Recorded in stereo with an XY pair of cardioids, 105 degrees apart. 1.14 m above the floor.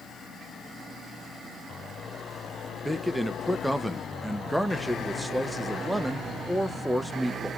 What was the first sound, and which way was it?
A man speaking, 5° right.